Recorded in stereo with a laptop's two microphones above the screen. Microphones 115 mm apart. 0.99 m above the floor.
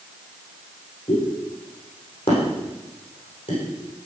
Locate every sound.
1.1 s a pop: 50° left (ahead or behind), 8 m